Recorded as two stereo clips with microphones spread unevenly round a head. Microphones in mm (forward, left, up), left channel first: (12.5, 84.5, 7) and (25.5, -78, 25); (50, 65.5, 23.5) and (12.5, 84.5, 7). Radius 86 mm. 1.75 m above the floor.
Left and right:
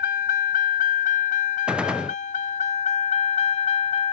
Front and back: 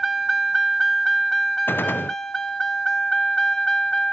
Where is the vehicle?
60° left; by 4.1 s 40° left.